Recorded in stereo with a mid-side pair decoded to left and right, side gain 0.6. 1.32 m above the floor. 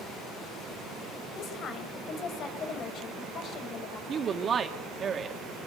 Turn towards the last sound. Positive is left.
turn(degrees=-35)